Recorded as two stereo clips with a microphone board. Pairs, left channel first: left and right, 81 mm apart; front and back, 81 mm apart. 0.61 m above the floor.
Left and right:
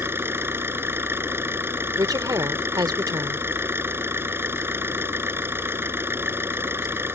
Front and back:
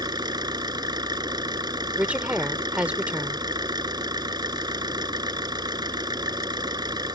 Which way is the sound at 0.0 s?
150° right.